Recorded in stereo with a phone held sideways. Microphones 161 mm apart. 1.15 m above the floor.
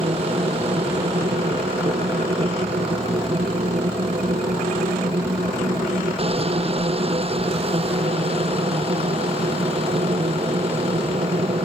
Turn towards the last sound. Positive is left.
turn(degrees=-40)  # may be behind; listen again after turning